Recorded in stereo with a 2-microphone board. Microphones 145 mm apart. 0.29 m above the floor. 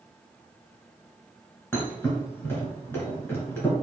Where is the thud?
15° left (ahead or behind), 1.5 m.